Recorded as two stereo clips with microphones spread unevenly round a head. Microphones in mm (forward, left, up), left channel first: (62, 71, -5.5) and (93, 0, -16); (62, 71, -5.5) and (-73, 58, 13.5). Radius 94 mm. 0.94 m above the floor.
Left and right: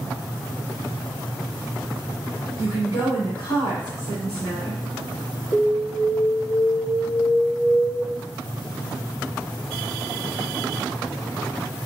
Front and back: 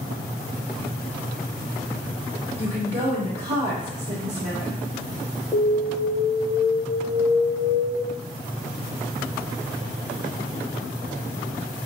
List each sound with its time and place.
2.6 s a woman speaking: 140° left, 3 m
5.5 s an alarm: 110° left, 2 m